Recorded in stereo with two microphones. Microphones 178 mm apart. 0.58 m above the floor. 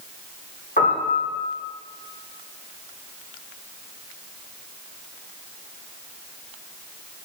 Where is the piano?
55° left (ahead or behind), 1.1 m.